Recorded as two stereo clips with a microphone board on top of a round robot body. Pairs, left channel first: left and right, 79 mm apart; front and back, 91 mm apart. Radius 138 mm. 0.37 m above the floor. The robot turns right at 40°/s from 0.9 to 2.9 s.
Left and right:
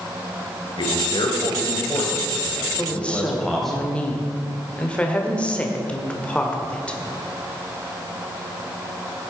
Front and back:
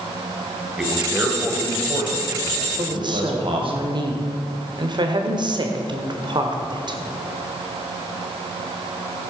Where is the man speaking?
95° left, 2.5 m; by 3.8 s 175° left, 2.5 m.